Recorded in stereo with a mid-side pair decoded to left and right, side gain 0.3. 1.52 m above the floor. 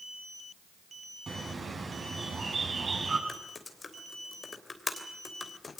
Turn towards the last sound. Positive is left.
turn(degrees=45)